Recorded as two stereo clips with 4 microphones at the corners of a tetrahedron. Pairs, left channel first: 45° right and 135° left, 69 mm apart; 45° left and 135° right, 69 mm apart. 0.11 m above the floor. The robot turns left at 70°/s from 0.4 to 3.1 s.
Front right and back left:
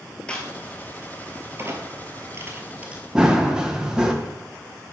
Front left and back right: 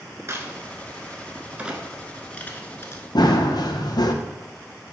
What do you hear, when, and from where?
0.3 s a crack: 115° right, 1.0 m; by 3.0 s 65° left, 1.0 m
3.1 s running footsteps: 55° left, 1.2 m